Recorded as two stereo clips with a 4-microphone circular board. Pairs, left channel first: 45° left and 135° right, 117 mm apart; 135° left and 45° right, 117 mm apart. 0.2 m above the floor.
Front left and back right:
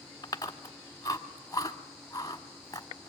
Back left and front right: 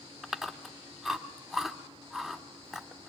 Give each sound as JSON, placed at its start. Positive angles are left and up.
{"t": 0.2, "sound": "chewing", "azimuth_deg": 40, "distance_m": 1.3}